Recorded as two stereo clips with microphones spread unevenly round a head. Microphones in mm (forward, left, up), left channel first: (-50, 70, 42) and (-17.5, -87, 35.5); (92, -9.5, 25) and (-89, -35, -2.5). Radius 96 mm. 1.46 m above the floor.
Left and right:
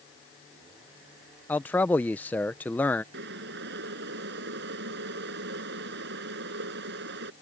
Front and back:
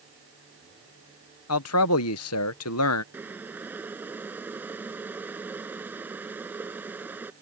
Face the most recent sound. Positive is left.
turn(degrees=-90)